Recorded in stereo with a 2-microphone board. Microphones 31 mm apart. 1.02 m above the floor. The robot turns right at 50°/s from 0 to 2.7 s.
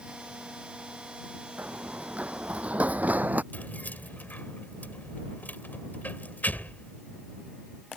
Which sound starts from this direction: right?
Running footsteps, at 1.6 s.